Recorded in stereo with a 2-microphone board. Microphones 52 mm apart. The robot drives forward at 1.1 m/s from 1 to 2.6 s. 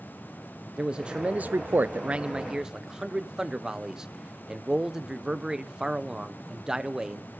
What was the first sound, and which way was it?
A man speaking, 15° right (ahead or behind).